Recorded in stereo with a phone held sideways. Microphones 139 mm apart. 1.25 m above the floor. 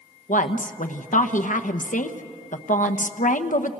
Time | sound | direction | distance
0.3 | a woman speaking | 70° left (ahead or behind) | 1.1 m